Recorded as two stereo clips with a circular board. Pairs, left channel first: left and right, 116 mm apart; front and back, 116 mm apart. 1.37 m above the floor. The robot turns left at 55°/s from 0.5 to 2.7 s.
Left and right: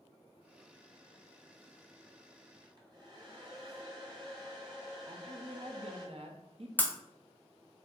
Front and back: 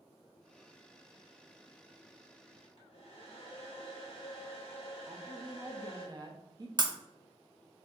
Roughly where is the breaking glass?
Behind left.